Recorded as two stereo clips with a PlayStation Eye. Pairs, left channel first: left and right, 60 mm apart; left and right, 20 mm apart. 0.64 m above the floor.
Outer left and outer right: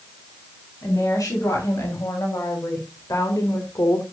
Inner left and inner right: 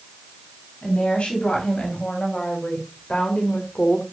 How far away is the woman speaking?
About 4 m.